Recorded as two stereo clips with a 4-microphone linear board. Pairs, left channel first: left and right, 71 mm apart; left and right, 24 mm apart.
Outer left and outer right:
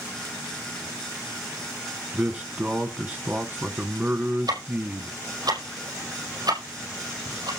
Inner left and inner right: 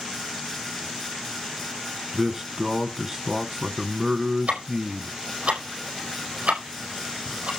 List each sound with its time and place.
2.1 s a man speaking: 25° right (ahead or behind), 1.1 m
4.5 s ticking: 70° right (ahead or behind), 5 m